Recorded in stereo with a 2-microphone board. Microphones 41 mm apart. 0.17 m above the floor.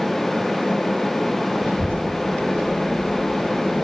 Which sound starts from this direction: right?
A child speaking, at 1.6 s.